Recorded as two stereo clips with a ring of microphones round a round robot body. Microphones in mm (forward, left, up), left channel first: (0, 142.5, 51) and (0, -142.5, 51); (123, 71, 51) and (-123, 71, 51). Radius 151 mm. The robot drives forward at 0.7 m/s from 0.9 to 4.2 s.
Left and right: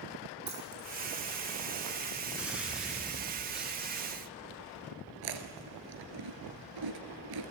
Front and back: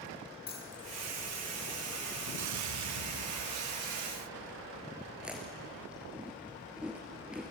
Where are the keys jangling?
60° right, 6.5 m.